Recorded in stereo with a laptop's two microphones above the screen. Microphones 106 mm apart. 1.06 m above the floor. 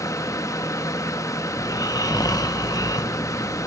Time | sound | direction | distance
0.0 | a fan | 30° left (ahead or behind) | 1.1 m
1.6 | snoring | 35° left (ahead or behind) | 1.0 m